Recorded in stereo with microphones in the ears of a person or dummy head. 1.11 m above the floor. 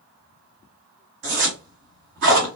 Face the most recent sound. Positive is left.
turn(degrees=-45)  # may be behind; listen again after turning